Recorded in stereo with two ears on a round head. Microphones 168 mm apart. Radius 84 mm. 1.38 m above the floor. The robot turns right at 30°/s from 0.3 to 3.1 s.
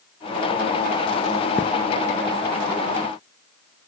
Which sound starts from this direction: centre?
A thud, at 1.6 s.